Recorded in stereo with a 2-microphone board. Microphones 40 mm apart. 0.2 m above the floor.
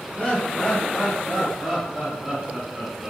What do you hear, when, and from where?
0.2 s laughter: 30° left (ahead or behind), 1.6 m; by 3.1 s 35° right (ahead or behind), 2 m